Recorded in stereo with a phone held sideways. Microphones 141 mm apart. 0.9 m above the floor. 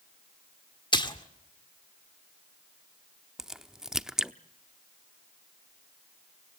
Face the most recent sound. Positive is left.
turn(degrees=-5)  # may be behind; listen again after turning